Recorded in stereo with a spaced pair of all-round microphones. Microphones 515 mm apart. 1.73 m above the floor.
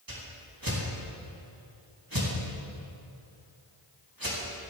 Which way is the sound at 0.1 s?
40° right (ahead or behind).